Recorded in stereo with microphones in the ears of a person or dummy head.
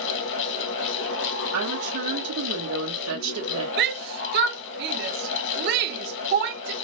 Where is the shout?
55° right (ahead or behind), 0.9 m.